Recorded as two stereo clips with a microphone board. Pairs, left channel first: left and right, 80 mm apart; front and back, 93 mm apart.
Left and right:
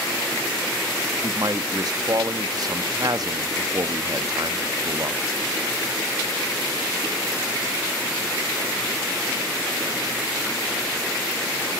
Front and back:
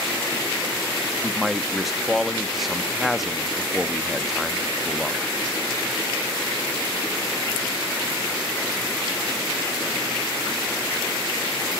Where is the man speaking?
90° right, 0.7 m.